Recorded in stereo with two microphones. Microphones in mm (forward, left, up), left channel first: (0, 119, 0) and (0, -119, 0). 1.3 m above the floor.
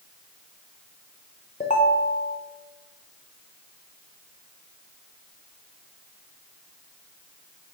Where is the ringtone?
30° left (ahead or behind), 0.6 m.